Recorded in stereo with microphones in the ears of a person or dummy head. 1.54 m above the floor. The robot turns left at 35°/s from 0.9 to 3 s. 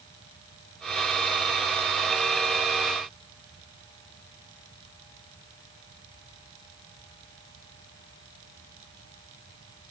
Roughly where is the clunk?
No clunk in this recording.